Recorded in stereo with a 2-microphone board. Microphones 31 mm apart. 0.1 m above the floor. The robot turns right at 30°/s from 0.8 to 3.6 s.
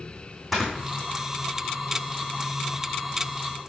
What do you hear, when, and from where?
0.5 s snoring: centre (ahead or behind), 3 m